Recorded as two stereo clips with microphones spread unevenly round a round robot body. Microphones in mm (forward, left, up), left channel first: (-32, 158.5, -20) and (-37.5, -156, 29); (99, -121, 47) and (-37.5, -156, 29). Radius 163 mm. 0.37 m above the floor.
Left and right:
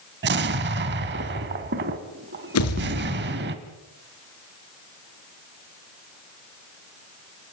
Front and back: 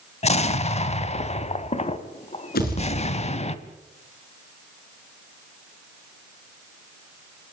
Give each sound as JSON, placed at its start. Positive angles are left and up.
{"t": 0.2, "sound": "an explosion", "azimuth_deg": -30, "distance_m": 1.7}
{"t": 2.5, "sound": "a pop", "azimuth_deg": 45, "distance_m": 5.5}